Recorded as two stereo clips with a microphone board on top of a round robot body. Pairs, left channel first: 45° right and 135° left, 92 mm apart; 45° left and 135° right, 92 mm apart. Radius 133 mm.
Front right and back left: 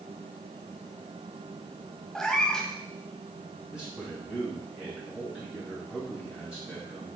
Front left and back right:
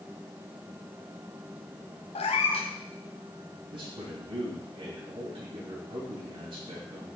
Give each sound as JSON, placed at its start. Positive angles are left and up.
{"t": 2.1, "sound": "a cat meowing", "azimuth_deg": 40, "distance_m": 0.9}
{"t": 3.7, "sound": "a man speaking", "azimuth_deg": -145, "distance_m": 3.0}